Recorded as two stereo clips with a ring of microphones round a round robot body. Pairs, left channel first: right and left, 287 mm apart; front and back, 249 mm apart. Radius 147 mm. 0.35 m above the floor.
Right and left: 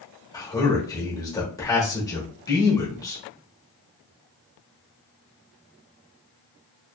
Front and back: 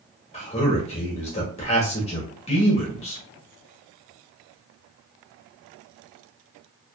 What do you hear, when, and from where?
0.3 s a man speaking: 25° right, 0.9 m